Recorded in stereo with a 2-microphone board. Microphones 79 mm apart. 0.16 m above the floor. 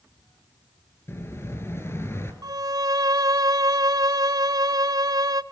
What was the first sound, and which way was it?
An explosion, 30° left (ahead or behind).